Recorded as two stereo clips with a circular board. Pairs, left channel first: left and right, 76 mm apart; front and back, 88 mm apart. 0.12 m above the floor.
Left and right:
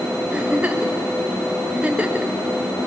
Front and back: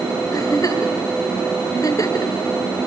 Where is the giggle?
20° right, 1.5 m.